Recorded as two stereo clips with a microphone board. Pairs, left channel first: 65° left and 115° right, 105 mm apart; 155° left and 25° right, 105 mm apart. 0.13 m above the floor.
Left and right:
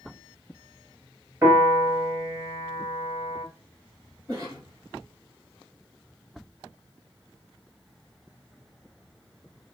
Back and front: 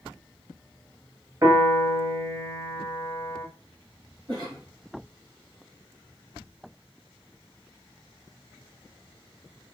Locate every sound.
1.4 s a piano: 70° right, 2 m
4.3 s a cough: 65° right, 4 m